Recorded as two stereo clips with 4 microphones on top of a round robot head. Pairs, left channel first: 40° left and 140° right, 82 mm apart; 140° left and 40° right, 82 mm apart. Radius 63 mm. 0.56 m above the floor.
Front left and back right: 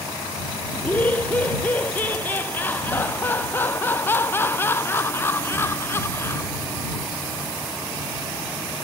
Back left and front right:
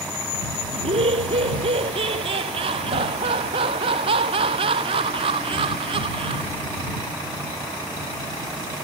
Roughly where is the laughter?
Ahead right.